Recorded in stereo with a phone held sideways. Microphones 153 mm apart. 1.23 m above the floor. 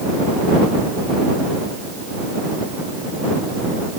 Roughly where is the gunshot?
I don't hear a gunshot.